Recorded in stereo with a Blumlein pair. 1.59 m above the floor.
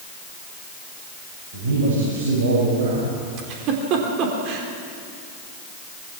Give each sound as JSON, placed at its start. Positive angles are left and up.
{"t": 1.5, "sound": "a man speaking", "azimuth_deg": -55, "distance_m": 7.5}
{"t": 3.4, "sound": "a giggle", "azimuth_deg": -40, "distance_m": 3.5}